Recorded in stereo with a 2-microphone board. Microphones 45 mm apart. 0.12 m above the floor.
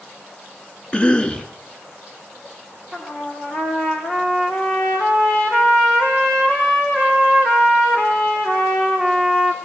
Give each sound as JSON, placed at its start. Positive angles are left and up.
{"t": 0.9, "sound": "a cough", "side_deg": 25, "distance_m": 1.7}
{"t": 2.9, "sound": "a trumpet", "side_deg": 15, "distance_m": 4.5}